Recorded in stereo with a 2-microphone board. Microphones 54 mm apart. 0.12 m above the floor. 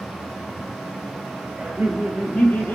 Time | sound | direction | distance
1.6 | laughter | 10° right (ahead or behind) | 1.1 m